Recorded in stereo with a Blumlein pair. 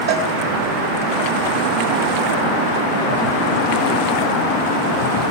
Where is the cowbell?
60° right, 5 m.